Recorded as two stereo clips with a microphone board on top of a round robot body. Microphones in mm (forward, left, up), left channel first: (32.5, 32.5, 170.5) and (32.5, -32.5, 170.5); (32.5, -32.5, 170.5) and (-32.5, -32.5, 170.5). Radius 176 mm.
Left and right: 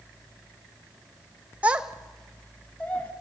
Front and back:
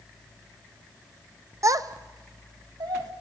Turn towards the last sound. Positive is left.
turn(degrees=160)